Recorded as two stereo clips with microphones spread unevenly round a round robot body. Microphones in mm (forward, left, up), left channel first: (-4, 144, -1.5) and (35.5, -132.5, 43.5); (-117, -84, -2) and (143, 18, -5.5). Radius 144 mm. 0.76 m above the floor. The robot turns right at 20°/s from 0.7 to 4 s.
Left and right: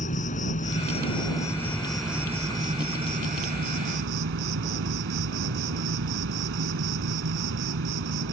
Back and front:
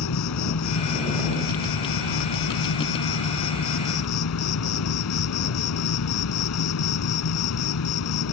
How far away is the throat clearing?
I don't hear throat clearing.